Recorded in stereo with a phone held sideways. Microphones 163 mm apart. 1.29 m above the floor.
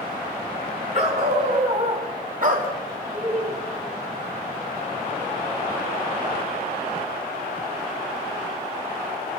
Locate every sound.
0.9 s a dog barking: 45° right (ahead or behind), 4.5 m; by 3.0 s 65° right (ahead or behind), 2.5 m
3.1 s laughter: 45° right (ahead or behind), 8 m